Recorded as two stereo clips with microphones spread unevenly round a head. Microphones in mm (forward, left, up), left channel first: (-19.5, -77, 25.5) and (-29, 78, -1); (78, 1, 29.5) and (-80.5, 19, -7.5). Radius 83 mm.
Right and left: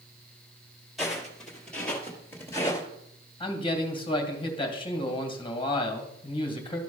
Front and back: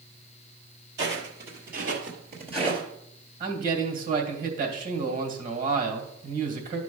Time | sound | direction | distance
1.0 | footsteps | 170° right | 2.5 m
3.4 | a man speaking | 145° right | 1.9 m